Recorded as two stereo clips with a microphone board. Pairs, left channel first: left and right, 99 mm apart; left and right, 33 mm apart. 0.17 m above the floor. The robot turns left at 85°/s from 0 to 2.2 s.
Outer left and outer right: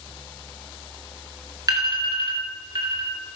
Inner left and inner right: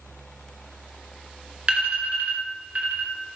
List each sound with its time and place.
1.7 s an alarm: 40° right (ahead or behind), 2.5 m; by 3.1 s 55° right (ahead or behind), 2.5 m